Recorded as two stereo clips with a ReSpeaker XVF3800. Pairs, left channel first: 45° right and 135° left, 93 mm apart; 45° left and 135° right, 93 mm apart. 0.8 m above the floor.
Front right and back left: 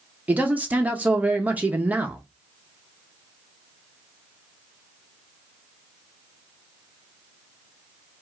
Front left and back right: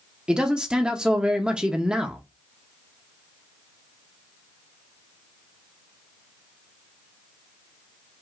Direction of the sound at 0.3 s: 165° left.